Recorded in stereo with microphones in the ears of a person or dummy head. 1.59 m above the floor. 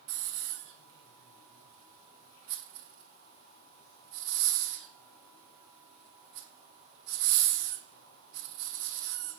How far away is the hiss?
About 1.1 m.